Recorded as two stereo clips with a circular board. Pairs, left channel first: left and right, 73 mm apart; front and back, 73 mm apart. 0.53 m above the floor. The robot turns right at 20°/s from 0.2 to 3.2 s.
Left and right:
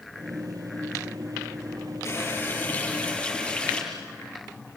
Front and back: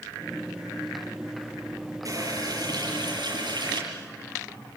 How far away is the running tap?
About 7.5 m.